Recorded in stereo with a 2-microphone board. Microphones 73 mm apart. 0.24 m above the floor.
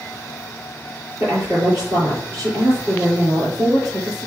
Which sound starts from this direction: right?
A woman speaking, at 1.2 s.